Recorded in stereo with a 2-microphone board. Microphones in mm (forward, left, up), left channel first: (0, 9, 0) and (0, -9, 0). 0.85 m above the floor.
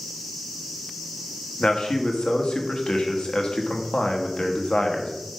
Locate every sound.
1.6 s a man speaking: 70° left (ahead or behind), 1.1 m